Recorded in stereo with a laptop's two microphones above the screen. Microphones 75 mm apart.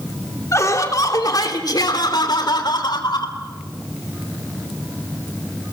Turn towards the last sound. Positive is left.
turn(degrees=75)  # may be behind; listen again after turning